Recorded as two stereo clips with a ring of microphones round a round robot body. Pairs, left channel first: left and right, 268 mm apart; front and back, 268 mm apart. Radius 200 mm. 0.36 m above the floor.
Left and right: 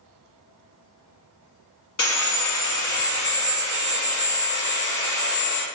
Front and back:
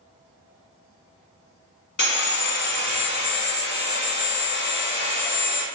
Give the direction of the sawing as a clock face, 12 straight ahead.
10 o'clock.